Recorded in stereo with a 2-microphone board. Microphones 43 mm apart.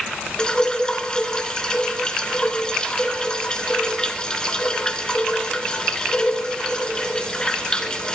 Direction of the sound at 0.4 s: 20° left (ahead or behind).